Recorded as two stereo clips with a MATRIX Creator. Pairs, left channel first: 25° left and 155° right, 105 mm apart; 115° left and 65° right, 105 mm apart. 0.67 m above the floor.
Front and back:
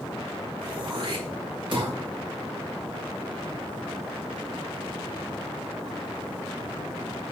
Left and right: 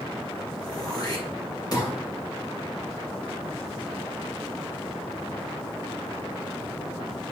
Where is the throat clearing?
165° left, 2.5 m.